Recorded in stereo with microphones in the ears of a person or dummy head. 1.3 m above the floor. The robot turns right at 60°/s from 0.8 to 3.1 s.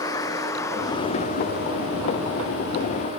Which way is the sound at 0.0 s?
20° left (ahead or behind).